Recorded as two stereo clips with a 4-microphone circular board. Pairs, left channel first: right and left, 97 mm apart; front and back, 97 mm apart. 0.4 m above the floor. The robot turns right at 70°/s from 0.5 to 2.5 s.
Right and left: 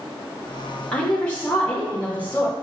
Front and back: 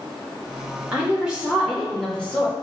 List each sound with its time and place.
0.9 s a woman speaking: 150° right, 0.8 m; by 2.5 s 40° right, 0.8 m